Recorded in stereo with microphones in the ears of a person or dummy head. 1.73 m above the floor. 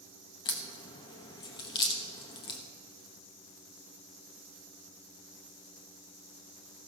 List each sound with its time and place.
0.5 s a crack: 30° left (ahead or behind), 1.2 m